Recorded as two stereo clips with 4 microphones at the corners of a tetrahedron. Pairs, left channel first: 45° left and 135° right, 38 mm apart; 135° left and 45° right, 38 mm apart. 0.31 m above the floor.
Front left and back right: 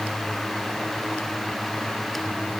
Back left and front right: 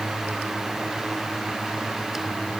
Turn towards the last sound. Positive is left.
No sound to turn to.